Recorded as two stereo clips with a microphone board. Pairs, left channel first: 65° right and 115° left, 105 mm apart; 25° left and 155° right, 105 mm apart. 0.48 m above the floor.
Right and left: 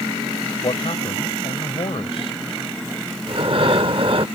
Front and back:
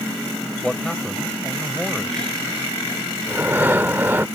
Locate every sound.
0.6 s a man speaking: 60° right
3.3 s breathing: 135° left